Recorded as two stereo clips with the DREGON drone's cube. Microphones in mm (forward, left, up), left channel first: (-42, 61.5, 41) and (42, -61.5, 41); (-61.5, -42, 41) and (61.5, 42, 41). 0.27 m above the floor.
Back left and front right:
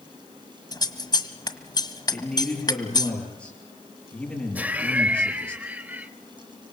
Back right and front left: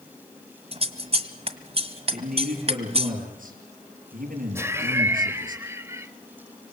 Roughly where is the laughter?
Ahead.